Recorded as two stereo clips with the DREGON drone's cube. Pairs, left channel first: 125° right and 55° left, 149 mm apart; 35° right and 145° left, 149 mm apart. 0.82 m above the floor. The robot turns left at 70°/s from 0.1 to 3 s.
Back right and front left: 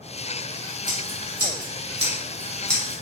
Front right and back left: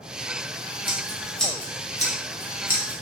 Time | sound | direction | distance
0.9 | scissors | 90° left | 1.3 m